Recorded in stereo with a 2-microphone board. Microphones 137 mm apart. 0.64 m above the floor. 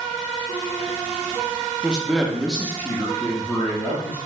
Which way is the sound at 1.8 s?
10° right (ahead or behind).